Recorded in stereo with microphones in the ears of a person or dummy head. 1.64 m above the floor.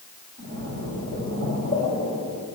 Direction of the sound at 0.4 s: 55° right (ahead or behind).